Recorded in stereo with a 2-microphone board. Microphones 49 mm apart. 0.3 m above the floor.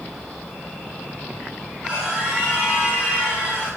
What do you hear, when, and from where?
1.8 s a scream: 20° right (ahead or behind), 3.5 m